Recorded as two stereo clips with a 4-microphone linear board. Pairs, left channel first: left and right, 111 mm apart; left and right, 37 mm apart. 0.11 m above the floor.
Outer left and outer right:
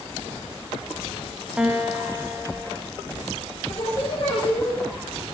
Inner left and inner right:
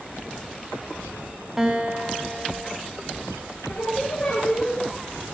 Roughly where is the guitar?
Centre.